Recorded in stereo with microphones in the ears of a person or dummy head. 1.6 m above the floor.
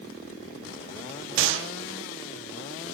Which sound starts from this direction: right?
A gunshot, at 1.4 s.